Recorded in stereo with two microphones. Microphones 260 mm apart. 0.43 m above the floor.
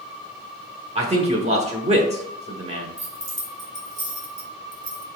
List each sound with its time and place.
0.9 s a man speaking: 25° right (ahead or behind), 1.2 m
3.0 s keys jangling: 50° right (ahead or behind), 2.5 m